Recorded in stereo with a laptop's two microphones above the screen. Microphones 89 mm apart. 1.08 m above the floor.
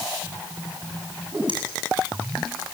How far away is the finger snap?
About 8.5 m.